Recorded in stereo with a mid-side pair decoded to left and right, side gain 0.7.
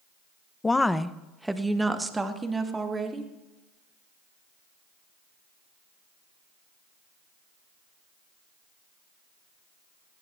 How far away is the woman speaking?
About 0.9 m.